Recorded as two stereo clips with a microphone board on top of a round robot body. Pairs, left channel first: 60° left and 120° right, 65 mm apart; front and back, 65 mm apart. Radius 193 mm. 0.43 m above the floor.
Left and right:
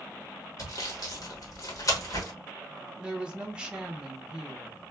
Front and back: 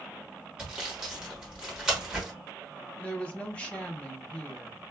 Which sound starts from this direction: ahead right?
A woman speaking, at 3.0 s.